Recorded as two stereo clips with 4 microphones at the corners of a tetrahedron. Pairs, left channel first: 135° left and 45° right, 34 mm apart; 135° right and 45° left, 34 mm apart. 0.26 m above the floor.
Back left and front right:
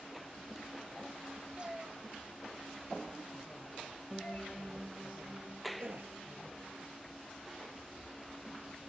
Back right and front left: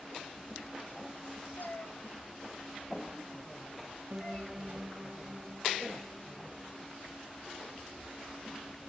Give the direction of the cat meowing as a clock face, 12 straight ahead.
4 o'clock.